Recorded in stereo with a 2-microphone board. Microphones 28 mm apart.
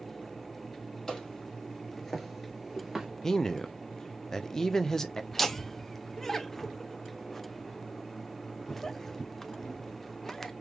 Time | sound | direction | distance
1.1 | footsteps | 20° left (ahead or behind) | 2.5 m
3.2 | a man speaking | 15° left (ahead or behind) | 0.5 m
5.3 | laughter | 10° left (ahead or behind) | 0.7 m